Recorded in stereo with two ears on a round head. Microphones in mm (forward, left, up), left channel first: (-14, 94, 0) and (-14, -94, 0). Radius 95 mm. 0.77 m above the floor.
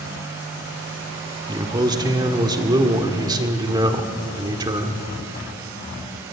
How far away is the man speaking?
About 1.8 m.